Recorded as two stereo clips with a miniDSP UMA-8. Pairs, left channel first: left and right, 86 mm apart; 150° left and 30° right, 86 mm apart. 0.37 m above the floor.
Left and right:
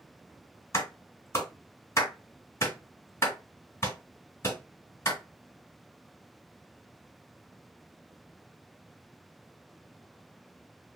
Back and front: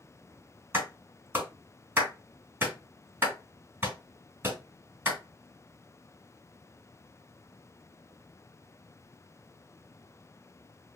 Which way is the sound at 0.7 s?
35° left.